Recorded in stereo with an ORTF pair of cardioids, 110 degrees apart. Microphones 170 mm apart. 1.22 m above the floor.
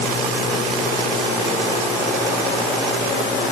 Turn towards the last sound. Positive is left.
No sound to turn to.